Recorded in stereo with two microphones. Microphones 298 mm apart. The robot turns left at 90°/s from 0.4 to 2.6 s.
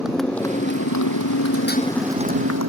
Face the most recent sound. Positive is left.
turn(degrees=-65)  # may be behind; listen again after turning